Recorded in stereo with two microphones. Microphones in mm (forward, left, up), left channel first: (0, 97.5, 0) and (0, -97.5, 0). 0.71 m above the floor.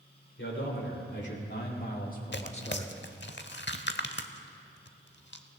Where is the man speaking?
65° left (ahead or behind), 3.5 m; by 2.9 s 20° left (ahead or behind), 1.5 m.